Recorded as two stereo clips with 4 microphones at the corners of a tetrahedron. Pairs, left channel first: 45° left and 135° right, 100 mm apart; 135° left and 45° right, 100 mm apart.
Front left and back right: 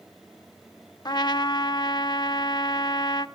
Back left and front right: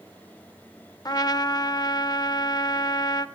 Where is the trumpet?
90° left, 0.5 m.